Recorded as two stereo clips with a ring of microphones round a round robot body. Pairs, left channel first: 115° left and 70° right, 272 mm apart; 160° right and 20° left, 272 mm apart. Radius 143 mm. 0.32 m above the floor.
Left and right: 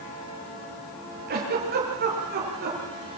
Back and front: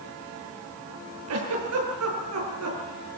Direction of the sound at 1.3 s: 10° right.